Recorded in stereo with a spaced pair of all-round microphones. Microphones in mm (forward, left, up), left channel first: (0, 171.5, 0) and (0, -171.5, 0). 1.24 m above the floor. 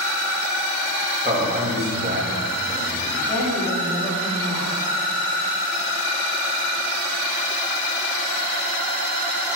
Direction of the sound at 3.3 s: 5° left (ahead or behind).